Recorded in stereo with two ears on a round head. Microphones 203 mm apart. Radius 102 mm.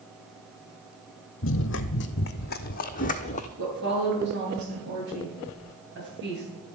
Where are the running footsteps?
55° left (ahead or behind), 1.1 m; by 3.5 s 30° left (ahead or behind), 1.5 m.